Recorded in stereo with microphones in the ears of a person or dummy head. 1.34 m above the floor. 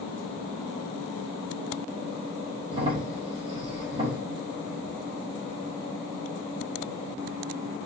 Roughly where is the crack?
Right.